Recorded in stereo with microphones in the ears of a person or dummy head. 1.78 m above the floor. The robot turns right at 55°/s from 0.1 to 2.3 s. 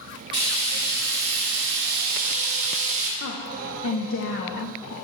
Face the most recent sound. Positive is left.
turn(degrees=75)  # may be behind; listen again after turning